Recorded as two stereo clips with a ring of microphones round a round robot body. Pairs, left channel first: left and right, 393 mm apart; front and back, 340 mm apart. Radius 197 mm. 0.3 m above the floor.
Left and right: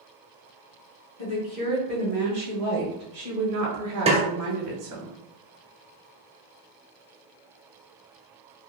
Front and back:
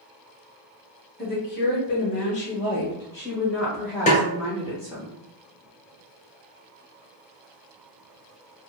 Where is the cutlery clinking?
I don't hear cutlery clinking.